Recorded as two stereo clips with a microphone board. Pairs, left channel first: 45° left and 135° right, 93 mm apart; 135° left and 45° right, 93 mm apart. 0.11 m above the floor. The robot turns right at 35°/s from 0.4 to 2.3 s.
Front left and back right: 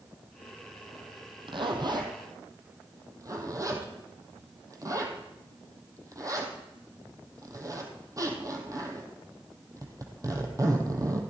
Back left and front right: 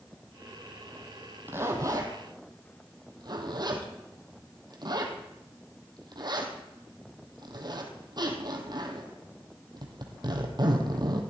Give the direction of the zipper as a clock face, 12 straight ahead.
4 o'clock.